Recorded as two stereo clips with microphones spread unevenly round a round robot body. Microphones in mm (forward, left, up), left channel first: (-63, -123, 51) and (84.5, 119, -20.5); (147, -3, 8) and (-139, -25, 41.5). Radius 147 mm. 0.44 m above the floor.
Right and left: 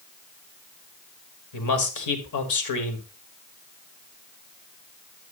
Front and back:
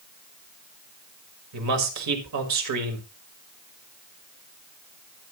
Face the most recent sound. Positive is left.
turn(degrees=-150)